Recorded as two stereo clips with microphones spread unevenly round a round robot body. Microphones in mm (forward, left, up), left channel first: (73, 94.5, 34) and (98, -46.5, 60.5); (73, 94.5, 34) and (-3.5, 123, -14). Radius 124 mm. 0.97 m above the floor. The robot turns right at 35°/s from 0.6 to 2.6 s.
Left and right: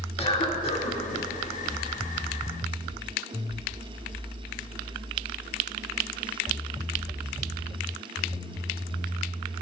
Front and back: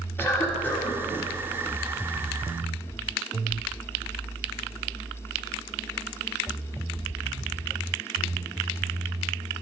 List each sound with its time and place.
0.2 s a cough: 60° left, 1.9 m; by 1.0 s 75° left, 1.9 m